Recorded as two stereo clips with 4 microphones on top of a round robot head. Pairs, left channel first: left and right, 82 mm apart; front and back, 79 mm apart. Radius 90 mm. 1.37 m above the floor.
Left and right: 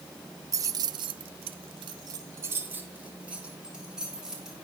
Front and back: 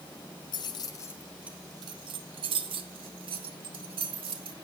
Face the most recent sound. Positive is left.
turn(degrees=-175)